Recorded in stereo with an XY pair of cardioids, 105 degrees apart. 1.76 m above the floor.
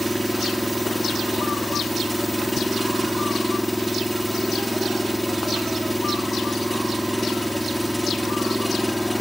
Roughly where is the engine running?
Ahead.